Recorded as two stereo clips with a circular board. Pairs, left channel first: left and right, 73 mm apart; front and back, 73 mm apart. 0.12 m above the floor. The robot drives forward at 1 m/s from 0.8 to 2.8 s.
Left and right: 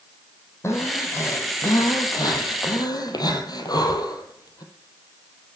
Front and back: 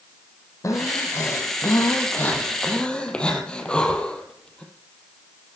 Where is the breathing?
40° left, 3.5 m; by 4.6 s 75° left, 2.5 m.